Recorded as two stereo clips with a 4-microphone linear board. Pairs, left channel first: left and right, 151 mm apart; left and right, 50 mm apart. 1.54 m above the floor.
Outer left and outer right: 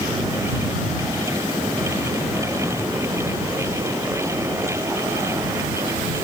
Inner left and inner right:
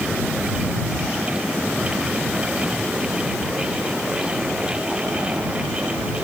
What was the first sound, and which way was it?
Only background noise.